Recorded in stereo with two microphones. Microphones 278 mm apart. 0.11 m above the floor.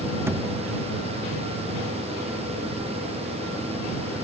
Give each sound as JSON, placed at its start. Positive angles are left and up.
{"t": 0.3, "sound": "a thud", "side_deg": -10}